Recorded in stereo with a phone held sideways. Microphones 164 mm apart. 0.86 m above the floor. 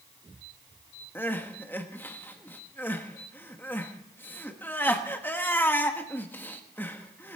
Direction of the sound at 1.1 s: 10° left (ahead or behind).